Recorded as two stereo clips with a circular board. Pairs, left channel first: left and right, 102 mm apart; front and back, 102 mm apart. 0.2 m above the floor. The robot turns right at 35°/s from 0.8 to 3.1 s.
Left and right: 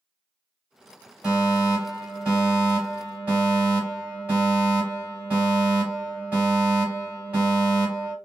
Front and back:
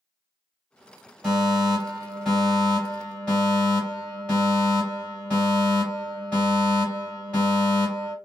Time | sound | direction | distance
1.2 | a fire alarm | 115° right | 1.9 m